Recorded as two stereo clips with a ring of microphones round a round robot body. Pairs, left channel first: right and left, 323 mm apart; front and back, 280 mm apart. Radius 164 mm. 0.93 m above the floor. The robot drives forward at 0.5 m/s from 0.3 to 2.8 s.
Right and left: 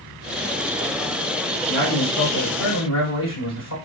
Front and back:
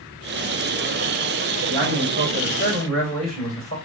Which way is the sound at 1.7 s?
120° right.